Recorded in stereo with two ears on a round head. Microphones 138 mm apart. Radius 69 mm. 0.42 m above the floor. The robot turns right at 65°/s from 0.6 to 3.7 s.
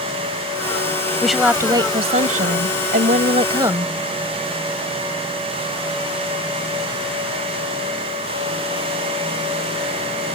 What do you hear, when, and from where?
1.2 s a woman speaking: 175° left; by 3.9 s 25° right